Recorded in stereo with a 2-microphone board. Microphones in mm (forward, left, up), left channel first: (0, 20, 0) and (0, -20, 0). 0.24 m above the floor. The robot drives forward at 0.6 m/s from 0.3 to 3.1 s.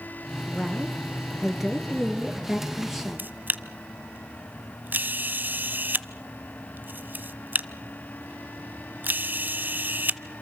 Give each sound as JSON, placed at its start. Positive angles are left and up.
{"t": 0.5, "sound": "a woman speaking", "side_deg": -10, "distance_m": 3.0}
{"t": 3.2, "sound": "a camera shutter", "side_deg": -50, "distance_m": 0.8}